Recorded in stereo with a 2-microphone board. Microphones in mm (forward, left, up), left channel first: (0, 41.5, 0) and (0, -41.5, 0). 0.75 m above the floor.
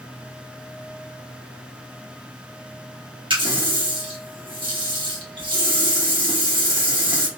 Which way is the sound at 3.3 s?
70° right (ahead or behind).